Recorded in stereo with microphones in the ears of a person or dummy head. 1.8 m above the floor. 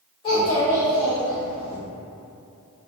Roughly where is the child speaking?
Left.